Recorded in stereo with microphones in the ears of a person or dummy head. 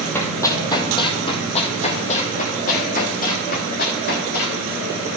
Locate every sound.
0.1 s running footsteps: 15° left (ahead or behind), 2 m; by 4.6 s 60° left (ahead or behind), 4 m